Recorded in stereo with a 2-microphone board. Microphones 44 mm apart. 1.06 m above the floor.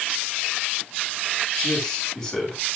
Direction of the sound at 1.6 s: 5° left (ahead or behind).